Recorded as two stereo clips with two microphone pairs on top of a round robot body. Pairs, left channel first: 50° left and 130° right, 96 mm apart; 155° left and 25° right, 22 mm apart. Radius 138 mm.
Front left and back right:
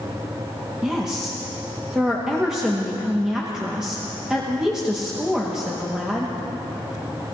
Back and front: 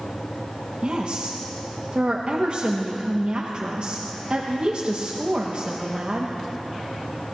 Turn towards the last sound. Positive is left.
turn(degrees=-55)